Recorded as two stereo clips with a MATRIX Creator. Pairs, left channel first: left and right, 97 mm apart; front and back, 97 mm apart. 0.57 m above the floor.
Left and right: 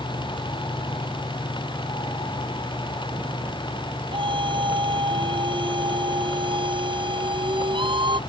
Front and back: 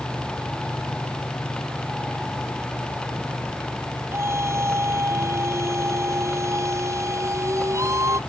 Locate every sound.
4.1 s a scream: 120° right